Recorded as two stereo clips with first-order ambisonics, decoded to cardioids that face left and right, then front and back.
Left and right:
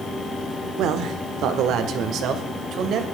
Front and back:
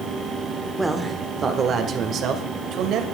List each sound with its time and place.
0.8 s a man speaking: 100° right, 1.3 m; by 3.0 s 140° right, 2 m